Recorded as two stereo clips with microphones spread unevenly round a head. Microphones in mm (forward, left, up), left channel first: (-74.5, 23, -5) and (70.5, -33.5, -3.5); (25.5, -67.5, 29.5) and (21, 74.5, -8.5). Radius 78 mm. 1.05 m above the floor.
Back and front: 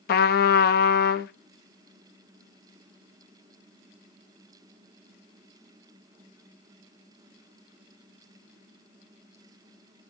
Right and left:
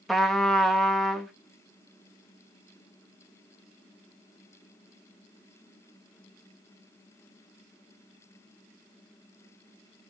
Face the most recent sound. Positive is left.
turn(degrees=-175)